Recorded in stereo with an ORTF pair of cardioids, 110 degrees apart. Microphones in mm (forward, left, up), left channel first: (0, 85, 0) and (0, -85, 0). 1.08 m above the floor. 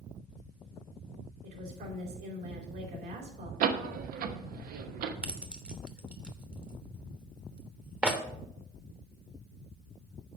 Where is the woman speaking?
70° right, 3.5 m.